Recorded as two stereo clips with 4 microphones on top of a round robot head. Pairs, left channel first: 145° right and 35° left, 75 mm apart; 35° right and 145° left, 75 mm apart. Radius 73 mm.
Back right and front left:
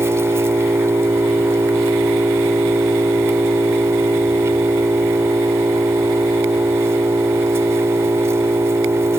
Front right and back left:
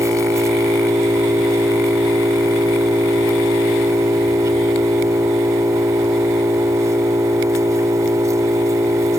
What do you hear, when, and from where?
0.0 s an engine running: 90° left